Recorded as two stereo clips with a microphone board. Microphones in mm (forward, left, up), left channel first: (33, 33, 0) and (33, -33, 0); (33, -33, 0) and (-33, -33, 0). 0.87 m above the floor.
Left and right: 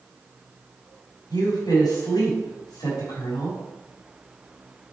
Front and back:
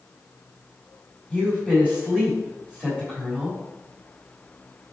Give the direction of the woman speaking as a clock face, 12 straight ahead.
8 o'clock.